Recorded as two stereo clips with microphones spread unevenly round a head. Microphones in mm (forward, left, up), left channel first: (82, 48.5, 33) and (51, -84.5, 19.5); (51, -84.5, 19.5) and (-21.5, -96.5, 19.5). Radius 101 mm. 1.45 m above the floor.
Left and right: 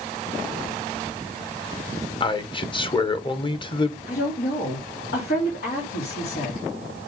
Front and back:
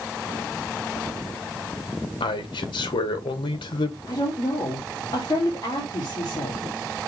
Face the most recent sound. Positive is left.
turn(degrees=75)